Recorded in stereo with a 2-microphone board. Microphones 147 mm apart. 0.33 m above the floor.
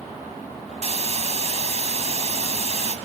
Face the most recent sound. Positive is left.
turn(degrees=-45)  # may be behind; listen again after turning